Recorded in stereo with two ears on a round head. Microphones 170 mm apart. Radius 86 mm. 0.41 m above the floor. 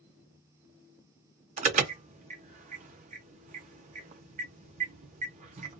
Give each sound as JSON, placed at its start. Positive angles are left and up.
{"t": 1.6, "sound": "an alarm", "side_deg": -35, "distance_m": 0.5}